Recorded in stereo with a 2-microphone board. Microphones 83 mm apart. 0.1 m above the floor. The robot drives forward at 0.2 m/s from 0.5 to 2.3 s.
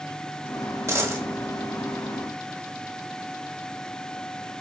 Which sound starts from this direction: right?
A dropped coin, at 0.9 s.